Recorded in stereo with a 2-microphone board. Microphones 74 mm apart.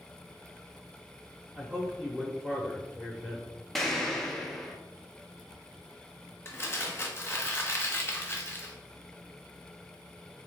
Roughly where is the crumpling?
Left.